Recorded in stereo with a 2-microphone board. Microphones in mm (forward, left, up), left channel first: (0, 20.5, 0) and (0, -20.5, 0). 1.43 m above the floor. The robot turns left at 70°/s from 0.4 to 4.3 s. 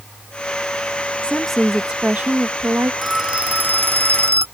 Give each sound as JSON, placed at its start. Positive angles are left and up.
{"t": 1.2, "sound": "a woman speaking", "azimuth_deg": 25}
{"t": 3.0, "sound": "a phone ringing", "azimuth_deg": -5}